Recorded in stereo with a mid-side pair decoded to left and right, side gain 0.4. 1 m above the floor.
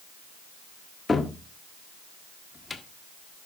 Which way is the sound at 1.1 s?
30° left.